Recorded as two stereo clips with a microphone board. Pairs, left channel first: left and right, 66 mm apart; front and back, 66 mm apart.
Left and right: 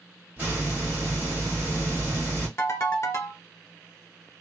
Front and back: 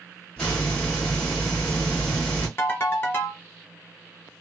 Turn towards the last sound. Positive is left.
turn(degrees=45)